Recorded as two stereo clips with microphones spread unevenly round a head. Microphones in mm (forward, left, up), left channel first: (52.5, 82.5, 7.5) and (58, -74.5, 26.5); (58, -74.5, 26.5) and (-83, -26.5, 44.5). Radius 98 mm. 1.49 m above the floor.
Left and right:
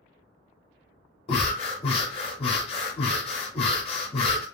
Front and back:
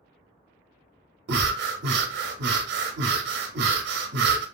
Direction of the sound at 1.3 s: 150° left.